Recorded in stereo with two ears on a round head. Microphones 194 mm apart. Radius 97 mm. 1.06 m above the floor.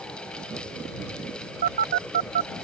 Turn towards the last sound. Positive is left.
turn(degrees=-45)  # may be behind; listen again after turning